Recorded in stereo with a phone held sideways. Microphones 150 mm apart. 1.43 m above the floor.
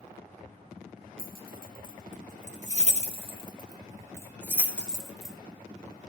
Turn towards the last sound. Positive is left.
turn(degrees=0)  # may be behind; listen again after turning